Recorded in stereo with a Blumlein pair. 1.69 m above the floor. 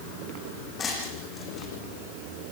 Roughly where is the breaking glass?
Ahead.